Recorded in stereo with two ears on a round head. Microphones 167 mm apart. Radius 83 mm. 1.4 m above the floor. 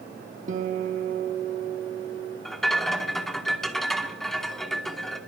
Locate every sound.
0.5 s a guitar: 45° right (ahead or behind), 1.2 m
2.5 s a rattle: centre (ahead or behind), 1.1 m